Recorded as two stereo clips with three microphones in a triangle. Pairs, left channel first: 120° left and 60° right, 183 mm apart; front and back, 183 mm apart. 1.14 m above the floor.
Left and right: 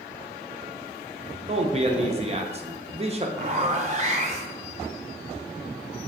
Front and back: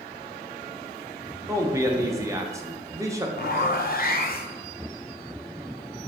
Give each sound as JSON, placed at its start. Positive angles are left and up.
{"t": 1.5, "sound": "a man speaking", "azimuth_deg": -110, "distance_m": 0.6}
{"t": 3.4, "sound": "a zipper", "azimuth_deg": -20, "distance_m": 0.5}